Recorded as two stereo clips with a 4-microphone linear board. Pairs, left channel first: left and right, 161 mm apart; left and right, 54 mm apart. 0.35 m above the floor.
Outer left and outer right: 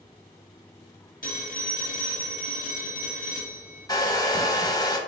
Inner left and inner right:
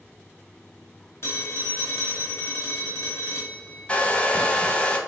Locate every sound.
1.2 s a phone ringing: 55° left (ahead or behind), 0.9 m
3.9 s a hair dryer: 25° left (ahead or behind), 0.5 m